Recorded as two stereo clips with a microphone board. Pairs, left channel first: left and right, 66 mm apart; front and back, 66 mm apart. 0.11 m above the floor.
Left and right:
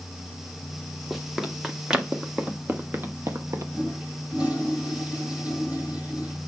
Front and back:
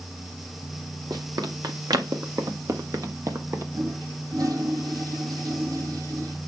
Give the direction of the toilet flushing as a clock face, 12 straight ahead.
5 o'clock.